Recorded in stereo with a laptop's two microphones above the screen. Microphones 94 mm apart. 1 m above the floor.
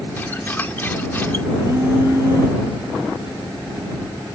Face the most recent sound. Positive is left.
turn(degrees=-30)  # may be behind; listen again after turning